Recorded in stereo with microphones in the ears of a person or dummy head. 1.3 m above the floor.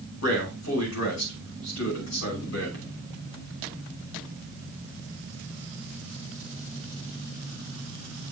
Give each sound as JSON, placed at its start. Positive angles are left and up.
{"t": 0.2, "sound": "a man speaking", "side_deg": 75, "distance_m": 5.5}